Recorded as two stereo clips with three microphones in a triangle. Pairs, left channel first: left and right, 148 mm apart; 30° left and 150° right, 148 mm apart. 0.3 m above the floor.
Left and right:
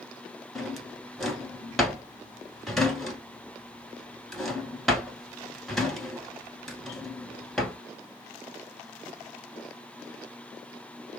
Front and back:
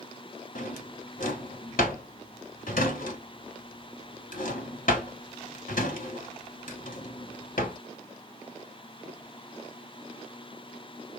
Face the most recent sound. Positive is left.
turn(degrees=0)